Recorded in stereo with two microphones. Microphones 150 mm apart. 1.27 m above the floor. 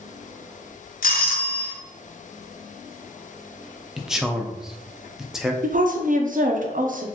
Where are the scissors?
No scissors in this recording.